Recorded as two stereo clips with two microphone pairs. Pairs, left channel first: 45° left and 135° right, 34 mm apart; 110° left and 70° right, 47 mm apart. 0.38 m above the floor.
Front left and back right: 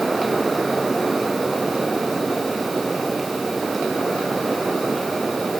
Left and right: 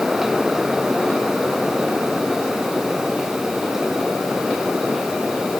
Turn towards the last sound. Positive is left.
No sound to turn to.